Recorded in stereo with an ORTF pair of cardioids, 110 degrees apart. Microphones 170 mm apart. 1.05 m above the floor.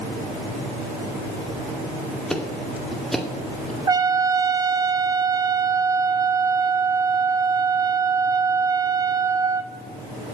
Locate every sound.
2.3 s ticking: straight ahead, 2 m
3.9 s a trumpet: 20° right, 1.0 m